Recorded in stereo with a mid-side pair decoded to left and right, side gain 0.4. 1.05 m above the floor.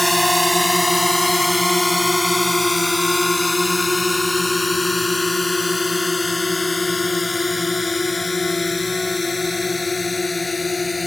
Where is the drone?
5° left; by 11.1 s 25° left.